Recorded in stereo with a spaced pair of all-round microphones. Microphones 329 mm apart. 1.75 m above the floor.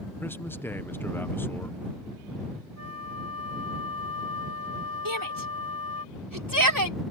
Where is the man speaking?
5° left (ahead or behind).